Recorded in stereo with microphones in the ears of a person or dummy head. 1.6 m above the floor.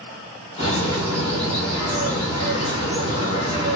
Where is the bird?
35° left (ahead or behind), 1.6 m.